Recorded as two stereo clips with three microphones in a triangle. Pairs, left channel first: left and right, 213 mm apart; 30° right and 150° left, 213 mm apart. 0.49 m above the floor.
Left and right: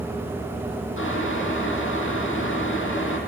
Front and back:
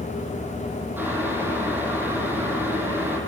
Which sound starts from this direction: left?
Boiling, at 1.0 s.